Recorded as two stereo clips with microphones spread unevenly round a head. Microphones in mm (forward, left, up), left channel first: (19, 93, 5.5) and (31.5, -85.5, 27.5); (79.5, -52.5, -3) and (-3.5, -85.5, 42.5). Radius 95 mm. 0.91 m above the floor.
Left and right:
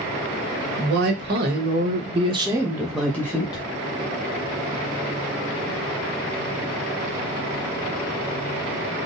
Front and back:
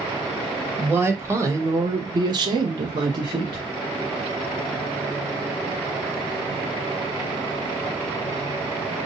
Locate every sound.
0.8 s a woman speaking: 75° right, 1.4 m; by 3.6 s 140° left, 1.0 m